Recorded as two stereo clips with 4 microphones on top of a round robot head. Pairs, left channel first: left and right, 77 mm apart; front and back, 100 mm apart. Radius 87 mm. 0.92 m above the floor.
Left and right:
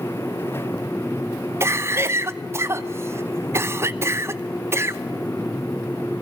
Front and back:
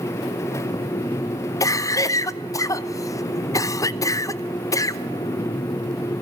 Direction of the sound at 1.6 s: 45° right.